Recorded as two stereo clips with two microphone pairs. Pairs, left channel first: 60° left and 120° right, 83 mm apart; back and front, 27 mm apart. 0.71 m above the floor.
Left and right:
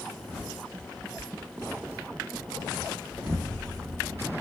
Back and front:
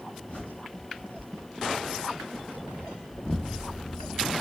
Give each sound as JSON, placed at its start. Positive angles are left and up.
{"t": 0.3, "sound": "a bird", "azimuth_deg": 160, "distance_m": 2.5}
{"t": 3.1, "sound": "an explosion", "azimuth_deg": 180, "distance_m": 0.8}